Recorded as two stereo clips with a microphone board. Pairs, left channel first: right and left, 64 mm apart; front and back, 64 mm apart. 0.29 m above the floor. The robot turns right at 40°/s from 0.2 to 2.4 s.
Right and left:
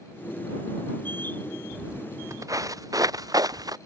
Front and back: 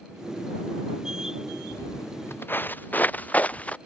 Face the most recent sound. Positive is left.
turn(degrees=70)